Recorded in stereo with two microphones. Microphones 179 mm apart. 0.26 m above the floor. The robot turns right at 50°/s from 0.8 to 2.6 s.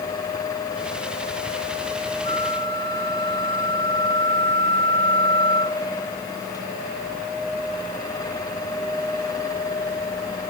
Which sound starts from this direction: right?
A flute, at 2.2 s.